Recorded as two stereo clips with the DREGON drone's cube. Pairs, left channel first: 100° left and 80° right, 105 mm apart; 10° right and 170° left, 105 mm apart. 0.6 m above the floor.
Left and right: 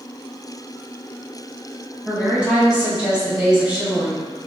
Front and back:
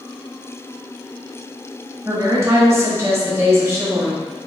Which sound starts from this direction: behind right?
A woman speaking, at 2.0 s.